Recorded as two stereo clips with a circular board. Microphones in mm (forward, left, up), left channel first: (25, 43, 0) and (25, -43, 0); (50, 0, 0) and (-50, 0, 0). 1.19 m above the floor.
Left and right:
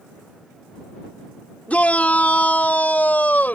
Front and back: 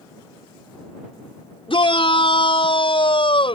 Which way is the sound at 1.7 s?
15° left.